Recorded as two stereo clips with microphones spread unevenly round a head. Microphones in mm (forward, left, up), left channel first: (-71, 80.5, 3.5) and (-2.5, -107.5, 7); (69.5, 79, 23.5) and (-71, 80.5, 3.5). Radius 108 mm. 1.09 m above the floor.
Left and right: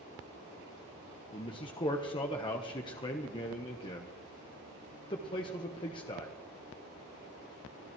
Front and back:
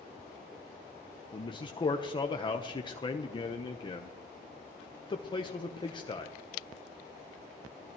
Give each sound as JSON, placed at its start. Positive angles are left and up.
{"t": 1.3, "sound": "a man speaking", "azimuth_deg": 50, "distance_m": 0.9}